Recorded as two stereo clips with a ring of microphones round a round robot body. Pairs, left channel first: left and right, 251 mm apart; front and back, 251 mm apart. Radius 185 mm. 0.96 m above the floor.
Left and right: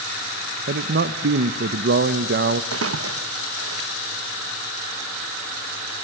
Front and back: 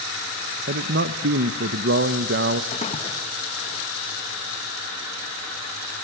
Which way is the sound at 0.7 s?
135° right.